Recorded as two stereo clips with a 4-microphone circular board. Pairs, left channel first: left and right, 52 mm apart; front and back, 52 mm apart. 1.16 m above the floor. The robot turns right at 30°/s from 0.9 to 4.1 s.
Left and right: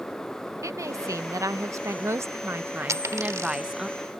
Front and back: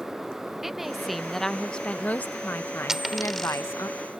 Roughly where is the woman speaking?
Right.